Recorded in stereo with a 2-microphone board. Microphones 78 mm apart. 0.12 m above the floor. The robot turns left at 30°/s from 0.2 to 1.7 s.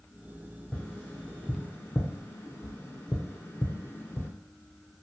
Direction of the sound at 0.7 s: 15° left (ahead or behind).